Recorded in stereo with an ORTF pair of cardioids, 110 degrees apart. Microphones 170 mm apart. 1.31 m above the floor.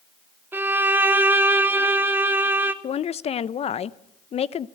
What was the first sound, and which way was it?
A violin, 10° right.